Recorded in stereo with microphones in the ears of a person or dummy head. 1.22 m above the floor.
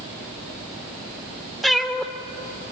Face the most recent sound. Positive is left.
turn(degrees=5)  # may be behind; listen again after turning